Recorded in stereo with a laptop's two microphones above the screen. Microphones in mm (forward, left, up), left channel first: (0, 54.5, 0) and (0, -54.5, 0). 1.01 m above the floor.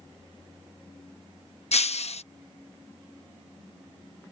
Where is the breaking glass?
75° left (ahead or behind).